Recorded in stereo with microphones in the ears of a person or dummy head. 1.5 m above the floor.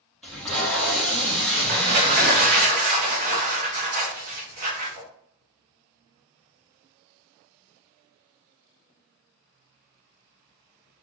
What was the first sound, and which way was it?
Tape being pulled, 5° left (ahead or behind).